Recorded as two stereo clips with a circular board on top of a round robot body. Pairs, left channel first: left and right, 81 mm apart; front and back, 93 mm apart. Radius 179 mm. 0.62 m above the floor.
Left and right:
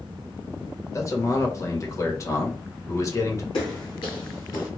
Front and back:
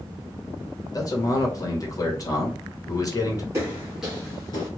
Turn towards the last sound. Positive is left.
turn(degrees=30)